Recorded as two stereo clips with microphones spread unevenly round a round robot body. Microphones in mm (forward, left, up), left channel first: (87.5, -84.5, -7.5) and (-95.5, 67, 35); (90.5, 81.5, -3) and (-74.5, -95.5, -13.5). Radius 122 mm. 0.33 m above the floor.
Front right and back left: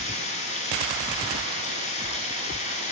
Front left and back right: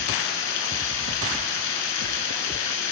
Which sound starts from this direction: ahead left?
Running water, at 0.0 s.